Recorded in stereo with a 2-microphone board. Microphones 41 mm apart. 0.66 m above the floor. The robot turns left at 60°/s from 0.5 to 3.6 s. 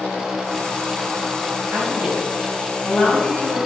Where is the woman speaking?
135° right, 4 m; by 3.6 s 115° left, 4 m.